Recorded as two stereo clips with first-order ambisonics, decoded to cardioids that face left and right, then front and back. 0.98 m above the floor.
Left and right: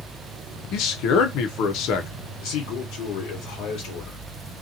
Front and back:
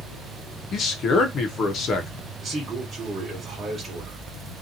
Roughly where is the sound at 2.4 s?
Left.